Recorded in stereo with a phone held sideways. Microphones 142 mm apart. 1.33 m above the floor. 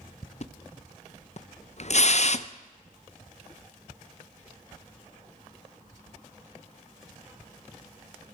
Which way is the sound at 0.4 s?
55° left (ahead or behind).